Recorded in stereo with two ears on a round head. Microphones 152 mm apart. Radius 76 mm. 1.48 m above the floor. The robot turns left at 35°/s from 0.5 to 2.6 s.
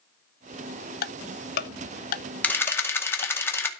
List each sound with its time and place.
1.0 s ticking: 55° left (ahead or behind), 0.7 m; by 3.3 s 40° left (ahead or behind), 0.7 m
2.4 s a camera shutter: 10° left (ahead or behind), 2.0 m; by 3.7 s 15° left (ahead or behind), 2.0 m